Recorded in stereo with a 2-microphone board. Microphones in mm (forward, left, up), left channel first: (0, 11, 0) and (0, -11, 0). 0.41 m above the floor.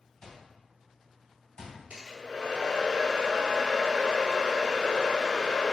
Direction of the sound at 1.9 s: 60° right (ahead or behind).